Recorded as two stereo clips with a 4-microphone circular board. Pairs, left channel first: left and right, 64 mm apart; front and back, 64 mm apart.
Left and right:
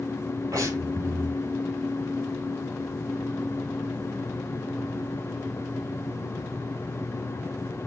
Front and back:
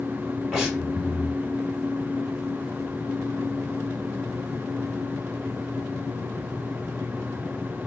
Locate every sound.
0.5 s breathing: 95° right, 3 m